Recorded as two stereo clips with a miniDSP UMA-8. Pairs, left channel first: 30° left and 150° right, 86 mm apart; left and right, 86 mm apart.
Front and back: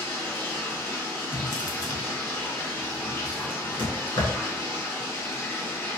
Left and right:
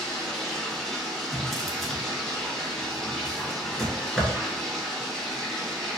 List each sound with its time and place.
0.0 s running water: 10° left, 0.8 m
1.3 s a drawer: 5° left, 0.6 m